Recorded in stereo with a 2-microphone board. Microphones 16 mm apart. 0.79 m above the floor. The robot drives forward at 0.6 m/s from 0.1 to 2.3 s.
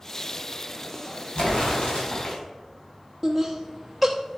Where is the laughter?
Centre (ahead or behind), 1.0 m.